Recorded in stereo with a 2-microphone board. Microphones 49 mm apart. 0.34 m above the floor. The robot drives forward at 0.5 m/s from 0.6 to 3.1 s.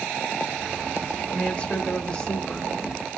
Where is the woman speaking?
25° left (ahead or behind), 0.9 m; by 3.2 s 15° left (ahead or behind), 1.4 m.